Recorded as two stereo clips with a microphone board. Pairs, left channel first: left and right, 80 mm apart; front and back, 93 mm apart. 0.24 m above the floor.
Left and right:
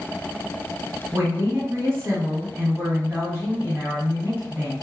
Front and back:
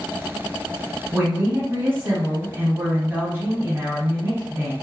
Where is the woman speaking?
125° right, 1.3 m.